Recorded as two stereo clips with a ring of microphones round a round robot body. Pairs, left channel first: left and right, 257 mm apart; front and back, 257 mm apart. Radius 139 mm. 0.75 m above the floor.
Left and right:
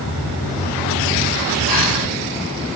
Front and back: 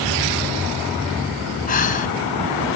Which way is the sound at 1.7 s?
60° left.